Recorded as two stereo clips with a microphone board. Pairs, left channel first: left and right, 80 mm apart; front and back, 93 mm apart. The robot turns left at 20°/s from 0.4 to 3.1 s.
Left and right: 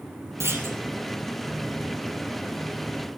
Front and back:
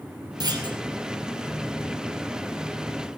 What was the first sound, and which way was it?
A clunk, 140° right.